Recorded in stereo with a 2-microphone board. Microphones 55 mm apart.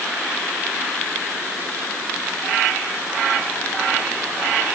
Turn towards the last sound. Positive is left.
No sound to turn to.